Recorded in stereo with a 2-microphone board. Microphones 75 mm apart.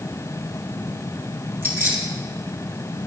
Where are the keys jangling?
35° right (ahead or behind), 4 m.